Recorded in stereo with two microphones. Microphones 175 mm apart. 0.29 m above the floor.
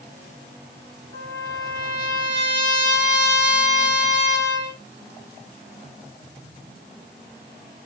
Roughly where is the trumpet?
Right.